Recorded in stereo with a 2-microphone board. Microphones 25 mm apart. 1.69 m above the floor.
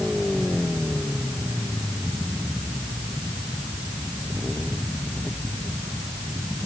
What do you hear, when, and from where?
Only background noise.